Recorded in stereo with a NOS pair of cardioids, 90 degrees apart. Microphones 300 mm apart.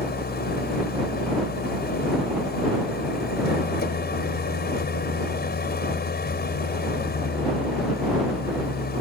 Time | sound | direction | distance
0.0 | an engine running | 30° left | ?